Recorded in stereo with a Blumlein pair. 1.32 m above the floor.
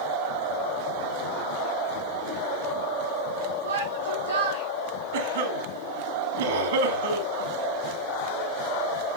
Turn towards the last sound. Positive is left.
turn(degrees=-60)